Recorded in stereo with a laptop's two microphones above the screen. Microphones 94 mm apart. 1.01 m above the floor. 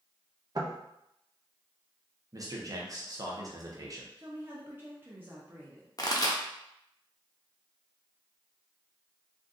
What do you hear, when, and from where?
0.6 s knocking: 45° right (ahead or behind), 0.7 m
2.3 s a man speaking: 40° right (ahead or behind), 0.7 m
4.2 s a woman speaking: 20° right (ahead or behind), 0.5 m
6.0 s a pop: 40° left (ahead or behind), 0.7 m